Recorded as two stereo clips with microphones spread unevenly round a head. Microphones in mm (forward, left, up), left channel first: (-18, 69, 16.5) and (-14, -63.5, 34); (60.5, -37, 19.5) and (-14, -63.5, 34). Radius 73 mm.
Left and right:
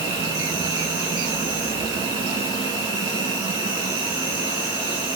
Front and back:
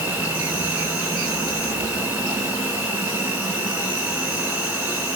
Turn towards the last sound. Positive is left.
turn(degrees=-125)